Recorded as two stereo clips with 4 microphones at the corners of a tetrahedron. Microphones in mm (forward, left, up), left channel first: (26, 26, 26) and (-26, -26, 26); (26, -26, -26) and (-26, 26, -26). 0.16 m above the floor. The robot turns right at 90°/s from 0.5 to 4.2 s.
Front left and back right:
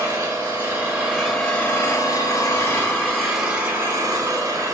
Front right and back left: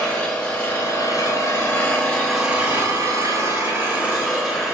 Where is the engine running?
115° right, 1.1 m; by 4.7 s 140° right, 1.1 m.